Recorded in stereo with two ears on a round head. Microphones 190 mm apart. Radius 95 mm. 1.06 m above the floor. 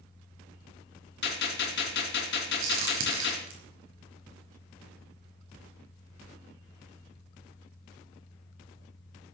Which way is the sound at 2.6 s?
75° right (ahead or behind).